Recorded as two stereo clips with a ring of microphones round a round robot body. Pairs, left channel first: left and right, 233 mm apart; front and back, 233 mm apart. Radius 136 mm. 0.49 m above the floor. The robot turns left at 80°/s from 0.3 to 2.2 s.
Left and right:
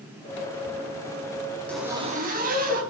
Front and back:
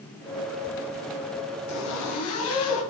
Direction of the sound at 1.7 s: 5° left.